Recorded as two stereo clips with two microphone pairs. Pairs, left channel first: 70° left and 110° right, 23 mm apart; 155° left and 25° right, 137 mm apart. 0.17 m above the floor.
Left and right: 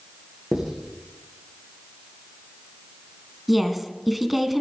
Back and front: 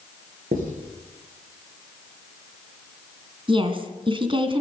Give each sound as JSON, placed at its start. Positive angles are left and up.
{"t": 0.5, "sound": "writing", "azimuth_deg": -25, "distance_m": 6.0}
{"t": 3.5, "sound": "a woman speaking", "azimuth_deg": -20, "distance_m": 2.0}